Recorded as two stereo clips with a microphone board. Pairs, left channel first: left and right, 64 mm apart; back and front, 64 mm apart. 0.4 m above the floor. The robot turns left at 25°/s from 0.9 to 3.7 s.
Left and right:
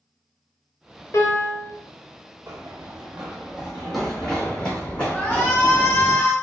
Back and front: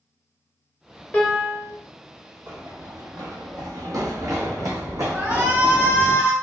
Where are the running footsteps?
35° right, 0.8 m; by 6.1 s 30° left, 2 m.